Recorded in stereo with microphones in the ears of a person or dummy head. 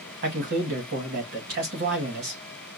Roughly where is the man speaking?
Right.